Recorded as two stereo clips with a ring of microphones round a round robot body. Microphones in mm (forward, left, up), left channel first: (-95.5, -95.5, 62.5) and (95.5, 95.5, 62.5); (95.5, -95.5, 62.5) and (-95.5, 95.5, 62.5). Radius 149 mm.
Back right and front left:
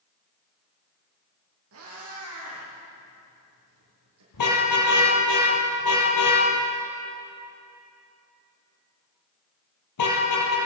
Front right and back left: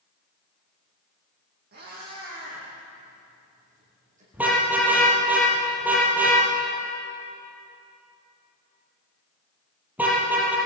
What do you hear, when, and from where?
1.7 s a cat meowing: 80° left, 9.5 m; by 4.2 s 70° left, 9.5 m
4.3 s a car horn: 140° right, 5.5 m